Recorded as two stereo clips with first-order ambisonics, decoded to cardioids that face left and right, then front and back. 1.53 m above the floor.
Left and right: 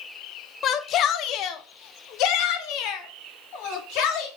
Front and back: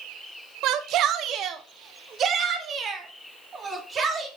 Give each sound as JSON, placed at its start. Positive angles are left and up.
{"t": 0.6, "sound": "a shout", "azimuth_deg": 145, "distance_m": 1.0}